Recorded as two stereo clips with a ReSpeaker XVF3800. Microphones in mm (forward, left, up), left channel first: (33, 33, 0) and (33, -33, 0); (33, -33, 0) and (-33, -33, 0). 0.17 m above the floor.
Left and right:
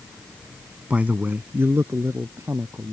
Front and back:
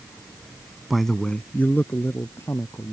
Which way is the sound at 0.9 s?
105° right.